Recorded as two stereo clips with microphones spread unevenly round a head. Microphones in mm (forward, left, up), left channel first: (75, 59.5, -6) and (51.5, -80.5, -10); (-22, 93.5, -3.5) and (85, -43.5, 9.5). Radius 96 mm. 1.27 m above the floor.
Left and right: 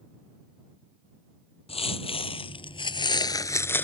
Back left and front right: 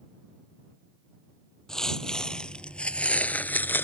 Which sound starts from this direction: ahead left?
Footsteps, at 1.7 s.